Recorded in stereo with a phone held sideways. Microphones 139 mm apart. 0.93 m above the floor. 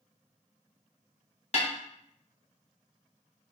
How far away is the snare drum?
About 0.8 m.